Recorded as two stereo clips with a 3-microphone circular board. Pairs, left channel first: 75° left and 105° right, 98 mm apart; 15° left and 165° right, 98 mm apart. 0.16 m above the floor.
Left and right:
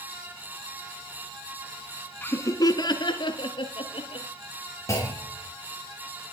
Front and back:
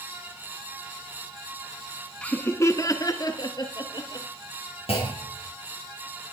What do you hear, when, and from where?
2.2 s laughter: 65° left, 1.1 m; by 4.3 s 55° left, 3.5 m
4.9 s a clunk: 15° left, 4.5 m